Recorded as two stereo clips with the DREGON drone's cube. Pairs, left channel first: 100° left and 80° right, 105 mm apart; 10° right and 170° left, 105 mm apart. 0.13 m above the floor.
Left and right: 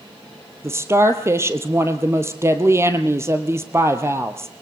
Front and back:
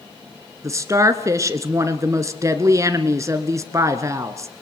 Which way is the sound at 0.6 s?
135° right.